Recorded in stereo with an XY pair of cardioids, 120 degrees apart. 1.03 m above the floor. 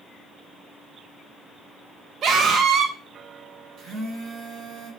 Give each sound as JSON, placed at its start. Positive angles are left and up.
{"t": 2.2, "sound": "a scream", "azimuth_deg": -55, "distance_m": 0.6}
{"t": 3.8, "sound": "a phone buzzing", "azimuth_deg": -65, "distance_m": 1.3}